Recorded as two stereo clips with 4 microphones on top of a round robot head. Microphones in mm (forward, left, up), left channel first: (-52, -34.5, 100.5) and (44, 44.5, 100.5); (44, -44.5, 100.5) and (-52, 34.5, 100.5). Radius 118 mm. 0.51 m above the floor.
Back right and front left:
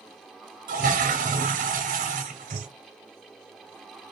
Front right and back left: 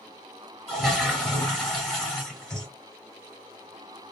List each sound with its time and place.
0.7 s a toilet flushing: 45° left, 0.7 m